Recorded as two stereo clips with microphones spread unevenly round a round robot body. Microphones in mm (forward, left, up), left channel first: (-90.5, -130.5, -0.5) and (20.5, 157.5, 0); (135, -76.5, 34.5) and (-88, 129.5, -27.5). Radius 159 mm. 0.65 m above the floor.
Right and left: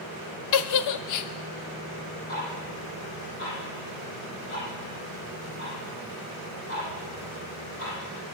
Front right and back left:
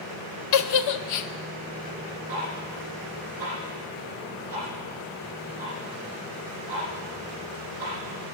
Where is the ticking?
160° right, 7.5 m.